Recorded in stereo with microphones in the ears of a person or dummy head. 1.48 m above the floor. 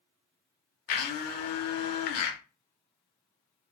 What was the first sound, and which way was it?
A blender, 50° left (ahead or behind).